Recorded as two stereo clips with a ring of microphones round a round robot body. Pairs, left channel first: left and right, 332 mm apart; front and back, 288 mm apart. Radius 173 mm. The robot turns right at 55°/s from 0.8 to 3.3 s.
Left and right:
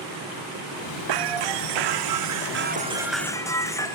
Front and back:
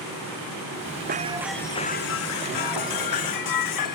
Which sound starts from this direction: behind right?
Breaking glass, at 1.1 s.